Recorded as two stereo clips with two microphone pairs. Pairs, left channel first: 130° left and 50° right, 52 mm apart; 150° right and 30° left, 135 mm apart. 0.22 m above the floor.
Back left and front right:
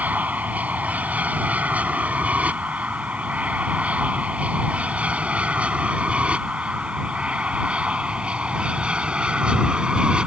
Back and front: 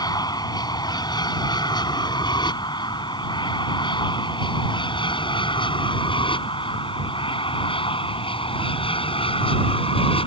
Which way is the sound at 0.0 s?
100° right.